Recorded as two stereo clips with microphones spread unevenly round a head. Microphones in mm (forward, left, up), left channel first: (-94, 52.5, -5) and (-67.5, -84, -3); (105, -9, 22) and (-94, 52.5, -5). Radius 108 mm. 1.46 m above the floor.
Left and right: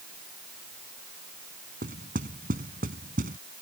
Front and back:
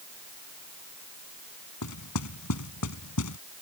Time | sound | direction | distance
1.8 | knocking | 25° right | ?